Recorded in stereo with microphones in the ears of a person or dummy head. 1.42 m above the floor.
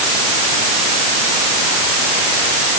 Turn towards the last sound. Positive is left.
No sound to turn to.